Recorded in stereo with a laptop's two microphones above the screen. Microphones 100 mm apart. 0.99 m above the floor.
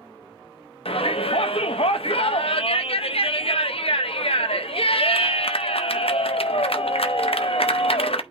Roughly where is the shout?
Left.